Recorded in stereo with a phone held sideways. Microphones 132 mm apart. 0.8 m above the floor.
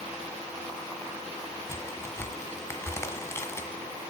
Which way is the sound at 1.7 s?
20° left (ahead or behind).